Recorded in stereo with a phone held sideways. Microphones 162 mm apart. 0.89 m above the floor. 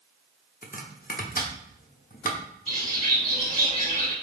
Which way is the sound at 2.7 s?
50° left (ahead or behind).